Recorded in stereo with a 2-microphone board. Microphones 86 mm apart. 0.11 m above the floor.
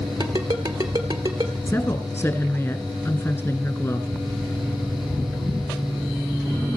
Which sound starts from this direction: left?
A woman speaking, at 1.7 s.